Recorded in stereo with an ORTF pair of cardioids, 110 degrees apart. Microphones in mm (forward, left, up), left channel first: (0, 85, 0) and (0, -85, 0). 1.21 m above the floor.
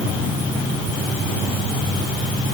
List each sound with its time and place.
Only background noise.